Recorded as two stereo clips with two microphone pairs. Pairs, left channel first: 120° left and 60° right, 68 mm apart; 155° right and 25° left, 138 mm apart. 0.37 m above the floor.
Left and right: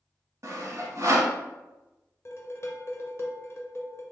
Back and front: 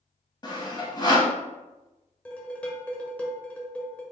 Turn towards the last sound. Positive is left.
turn(degrees=130)